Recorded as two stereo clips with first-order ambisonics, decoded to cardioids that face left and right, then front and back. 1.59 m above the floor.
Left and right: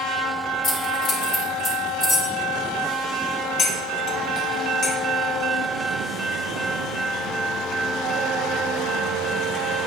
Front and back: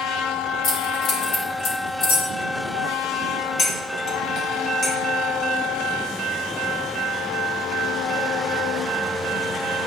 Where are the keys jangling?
35° left, 3.5 m; by 2.3 s 5° left, 3.5 m.